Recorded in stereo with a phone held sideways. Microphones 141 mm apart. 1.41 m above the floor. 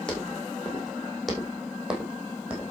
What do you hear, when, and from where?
0.1 s footsteps: 5° left (ahead or behind), 5.5 m; by 2.7 s 10° right (ahead or behind), 4 m